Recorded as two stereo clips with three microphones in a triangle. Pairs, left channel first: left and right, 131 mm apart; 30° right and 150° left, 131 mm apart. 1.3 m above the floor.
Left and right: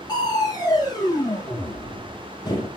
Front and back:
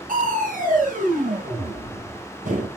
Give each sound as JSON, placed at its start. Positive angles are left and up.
{"t": 0.1, "sound": "crushing", "azimuth_deg": 150, "distance_m": 2.0}